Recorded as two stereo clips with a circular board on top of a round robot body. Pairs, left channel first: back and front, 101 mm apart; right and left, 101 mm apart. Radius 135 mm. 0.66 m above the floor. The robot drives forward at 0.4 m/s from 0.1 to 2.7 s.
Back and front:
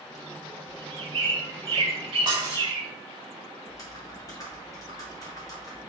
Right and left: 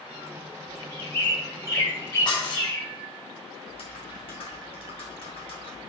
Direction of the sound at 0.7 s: 35° right.